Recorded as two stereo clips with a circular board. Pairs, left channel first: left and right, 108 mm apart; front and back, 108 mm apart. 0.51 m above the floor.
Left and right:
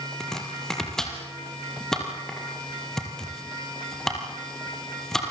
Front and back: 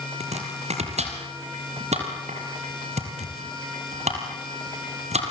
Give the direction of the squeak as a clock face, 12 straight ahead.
No squeak in this recording.